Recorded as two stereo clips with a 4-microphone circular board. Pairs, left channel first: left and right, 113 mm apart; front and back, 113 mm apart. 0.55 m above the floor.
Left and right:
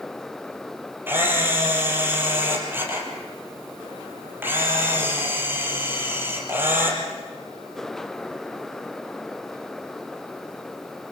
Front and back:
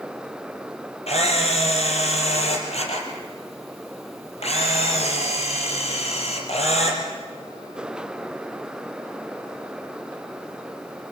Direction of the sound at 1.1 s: 20° right.